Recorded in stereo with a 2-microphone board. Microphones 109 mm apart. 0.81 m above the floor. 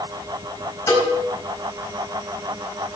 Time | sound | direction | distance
0.9 | a cowbell | 30° left (ahead or behind) | 5 m